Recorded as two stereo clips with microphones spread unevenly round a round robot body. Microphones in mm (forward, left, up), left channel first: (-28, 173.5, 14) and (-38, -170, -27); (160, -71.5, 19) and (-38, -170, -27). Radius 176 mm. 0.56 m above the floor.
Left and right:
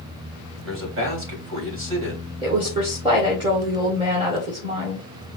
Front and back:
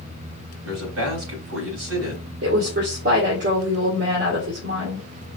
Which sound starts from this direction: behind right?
A man speaking, at 0.6 s.